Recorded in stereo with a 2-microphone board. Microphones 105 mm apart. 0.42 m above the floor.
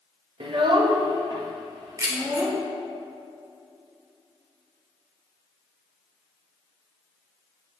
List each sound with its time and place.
0.4 s a child speaking: 55° right (ahead or behind), 0.6 m; by 2.6 s 40° right (ahead or behind), 2.5 m
2.0 s keys jangling: 30° right (ahead or behind), 1.0 m